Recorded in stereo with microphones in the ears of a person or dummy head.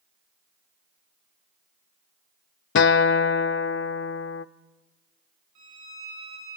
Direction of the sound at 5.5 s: 80° right.